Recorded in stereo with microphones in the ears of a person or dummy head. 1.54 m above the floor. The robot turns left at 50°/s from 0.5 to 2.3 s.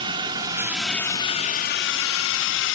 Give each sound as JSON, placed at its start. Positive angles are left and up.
{"t": 0.0, "sound": "a drone", "side_deg": -25}